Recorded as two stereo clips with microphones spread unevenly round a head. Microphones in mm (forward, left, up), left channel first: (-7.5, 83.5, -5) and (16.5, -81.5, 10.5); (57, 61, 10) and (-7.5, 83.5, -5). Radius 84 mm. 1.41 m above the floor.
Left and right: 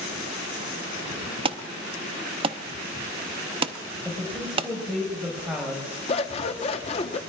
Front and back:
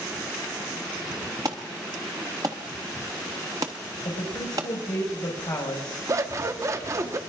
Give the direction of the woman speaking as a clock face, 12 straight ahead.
12 o'clock.